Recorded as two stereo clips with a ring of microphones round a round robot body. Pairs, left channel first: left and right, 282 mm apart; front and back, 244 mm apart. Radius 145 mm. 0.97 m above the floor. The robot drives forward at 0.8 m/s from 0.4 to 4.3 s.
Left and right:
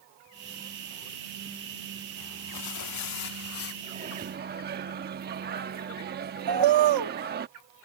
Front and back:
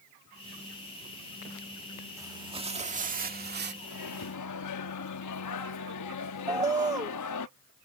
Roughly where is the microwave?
Ahead right.